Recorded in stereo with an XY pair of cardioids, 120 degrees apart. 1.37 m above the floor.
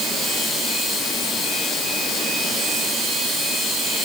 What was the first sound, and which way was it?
Only background noise.